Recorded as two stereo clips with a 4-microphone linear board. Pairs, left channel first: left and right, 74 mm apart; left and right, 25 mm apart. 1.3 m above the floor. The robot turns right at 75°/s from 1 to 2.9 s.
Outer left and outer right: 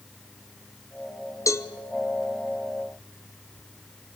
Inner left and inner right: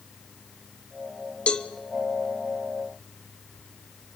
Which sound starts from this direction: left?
A cowbell, at 1.5 s.